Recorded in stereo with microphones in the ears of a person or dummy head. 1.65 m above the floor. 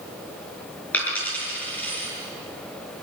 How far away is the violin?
No violin in this recording.